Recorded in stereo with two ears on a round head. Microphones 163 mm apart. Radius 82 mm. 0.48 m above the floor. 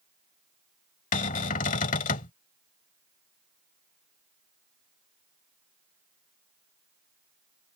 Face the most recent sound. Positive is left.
turn(degrees=45)  # may be behind; listen again after turning